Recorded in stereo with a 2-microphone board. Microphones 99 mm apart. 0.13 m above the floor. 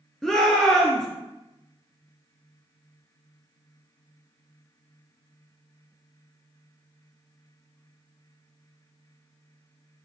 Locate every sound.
0.2 s a shout: 5° left (ahead or behind), 1.7 m